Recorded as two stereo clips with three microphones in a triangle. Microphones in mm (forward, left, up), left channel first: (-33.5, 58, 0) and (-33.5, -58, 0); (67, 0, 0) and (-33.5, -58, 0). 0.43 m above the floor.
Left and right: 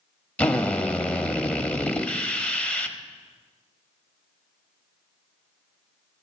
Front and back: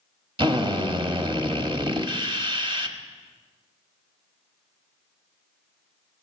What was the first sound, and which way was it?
A drill, 170° left.